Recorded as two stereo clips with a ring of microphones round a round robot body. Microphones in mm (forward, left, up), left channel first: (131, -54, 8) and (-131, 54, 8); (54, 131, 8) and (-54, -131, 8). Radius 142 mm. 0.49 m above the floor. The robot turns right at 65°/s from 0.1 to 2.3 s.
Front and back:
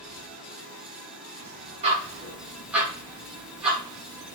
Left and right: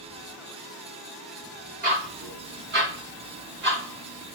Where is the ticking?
150° right, 0.9 m; by 4.3 s 120° right, 0.9 m.